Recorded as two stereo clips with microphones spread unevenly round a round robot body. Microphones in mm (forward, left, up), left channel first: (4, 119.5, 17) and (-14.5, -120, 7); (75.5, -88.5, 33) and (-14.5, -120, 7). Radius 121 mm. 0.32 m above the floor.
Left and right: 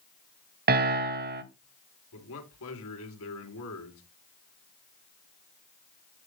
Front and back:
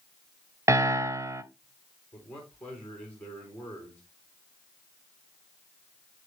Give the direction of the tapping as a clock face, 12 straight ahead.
I don't hear tapping.